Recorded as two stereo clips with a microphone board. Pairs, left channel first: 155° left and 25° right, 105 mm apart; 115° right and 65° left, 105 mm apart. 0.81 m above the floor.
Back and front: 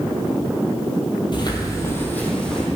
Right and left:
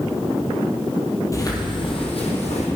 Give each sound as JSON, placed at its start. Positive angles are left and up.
{"t": 1.3, "sound": "footsteps", "azimuth_deg": -170, "distance_m": 1.4}